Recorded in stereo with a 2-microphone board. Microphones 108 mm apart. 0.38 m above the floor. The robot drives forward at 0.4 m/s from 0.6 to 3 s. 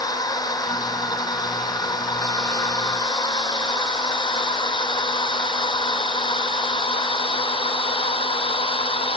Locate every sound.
0.0 s a drone: 35° left (ahead or behind); by 9.2 s 55° left (ahead or behind)